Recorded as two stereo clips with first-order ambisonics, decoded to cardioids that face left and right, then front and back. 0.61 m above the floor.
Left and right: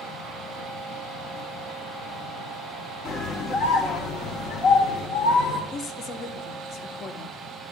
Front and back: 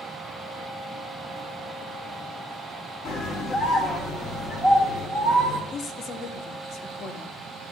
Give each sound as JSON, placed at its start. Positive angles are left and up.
{"t": 3.0, "sound": "a scream", "azimuth_deg": 40, "distance_m": 1.0}
{"t": 5.7, "sound": "a woman speaking", "azimuth_deg": 40, "distance_m": 0.9}